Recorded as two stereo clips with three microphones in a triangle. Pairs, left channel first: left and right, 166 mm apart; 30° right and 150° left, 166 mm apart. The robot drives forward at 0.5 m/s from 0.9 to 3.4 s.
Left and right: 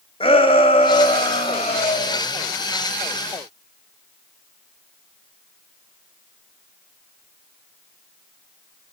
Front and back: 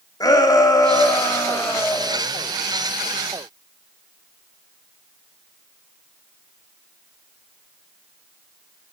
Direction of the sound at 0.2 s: 35° left.